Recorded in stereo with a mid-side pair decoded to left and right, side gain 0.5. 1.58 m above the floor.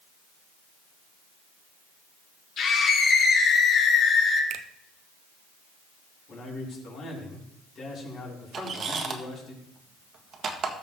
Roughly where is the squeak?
Ahead right.